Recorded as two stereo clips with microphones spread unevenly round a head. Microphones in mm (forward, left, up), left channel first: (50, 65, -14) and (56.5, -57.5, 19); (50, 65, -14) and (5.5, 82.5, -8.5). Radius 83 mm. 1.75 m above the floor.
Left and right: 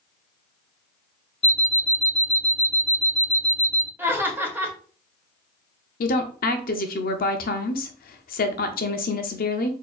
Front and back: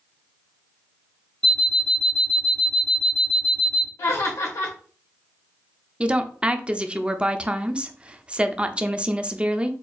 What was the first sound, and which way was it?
An alarm clock, 55° left.